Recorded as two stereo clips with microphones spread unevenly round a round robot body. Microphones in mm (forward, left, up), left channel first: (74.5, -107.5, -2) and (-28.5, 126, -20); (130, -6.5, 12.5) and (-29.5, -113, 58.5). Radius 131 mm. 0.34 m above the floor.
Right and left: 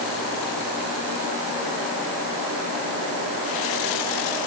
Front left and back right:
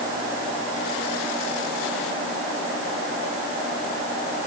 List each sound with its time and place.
Only background noise.